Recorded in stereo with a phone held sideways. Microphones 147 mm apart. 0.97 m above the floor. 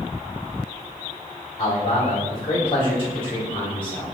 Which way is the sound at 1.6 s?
40° left (ahead or behind).